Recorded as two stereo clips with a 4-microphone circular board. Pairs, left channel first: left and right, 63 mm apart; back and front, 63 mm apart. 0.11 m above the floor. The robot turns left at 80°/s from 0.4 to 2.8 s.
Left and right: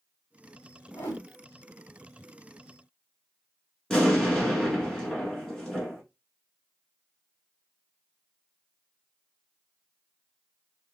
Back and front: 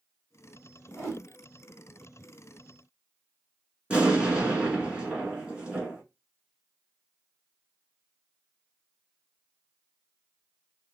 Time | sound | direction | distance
0.9 | a whoosh | 115° left | 2.5 m
3.9 | an explosion | 30° left | 1.3 m